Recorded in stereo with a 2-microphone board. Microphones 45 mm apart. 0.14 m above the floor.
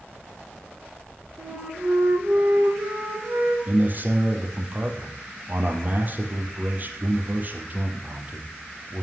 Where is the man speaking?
40° right (ahead or behind), 4.5 m.